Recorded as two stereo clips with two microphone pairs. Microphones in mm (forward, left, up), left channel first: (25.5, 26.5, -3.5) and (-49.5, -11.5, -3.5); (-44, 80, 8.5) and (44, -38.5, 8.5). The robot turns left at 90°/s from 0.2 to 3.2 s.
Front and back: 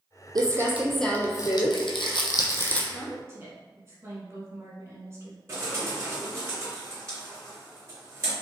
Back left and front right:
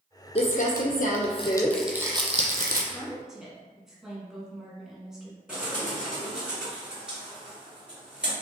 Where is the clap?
I don't hear a clap.